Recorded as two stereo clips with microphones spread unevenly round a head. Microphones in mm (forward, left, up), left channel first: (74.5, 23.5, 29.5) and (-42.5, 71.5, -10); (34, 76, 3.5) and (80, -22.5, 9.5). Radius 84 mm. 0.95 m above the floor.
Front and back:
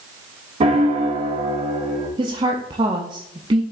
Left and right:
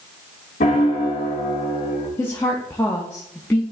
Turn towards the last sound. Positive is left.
turn(degrees=-175)